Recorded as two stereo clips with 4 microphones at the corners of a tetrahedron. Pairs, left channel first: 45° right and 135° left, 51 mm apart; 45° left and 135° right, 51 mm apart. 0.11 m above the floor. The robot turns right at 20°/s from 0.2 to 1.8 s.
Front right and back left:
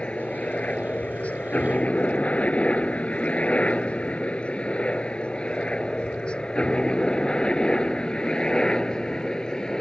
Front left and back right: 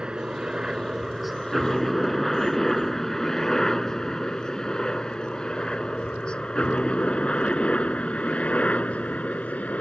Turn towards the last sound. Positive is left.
turn(degrees=20)